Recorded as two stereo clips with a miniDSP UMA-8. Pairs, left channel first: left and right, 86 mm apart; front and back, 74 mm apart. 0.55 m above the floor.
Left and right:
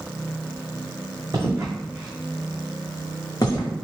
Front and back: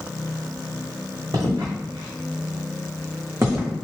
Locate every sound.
1.3 s footsteps: 145° right, 1.7 m; by 3.7 s 120° left, 1.9 m